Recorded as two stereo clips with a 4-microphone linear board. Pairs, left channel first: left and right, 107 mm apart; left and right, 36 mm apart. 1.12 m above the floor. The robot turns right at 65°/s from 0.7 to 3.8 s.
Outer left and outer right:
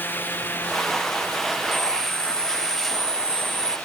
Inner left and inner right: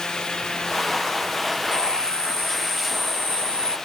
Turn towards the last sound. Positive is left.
turn(degrees=155)